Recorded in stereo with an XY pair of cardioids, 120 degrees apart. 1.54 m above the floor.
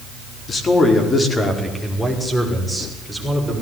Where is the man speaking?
35° left, 4.5 m; by 3.5 s straight ahead, 7.5 m.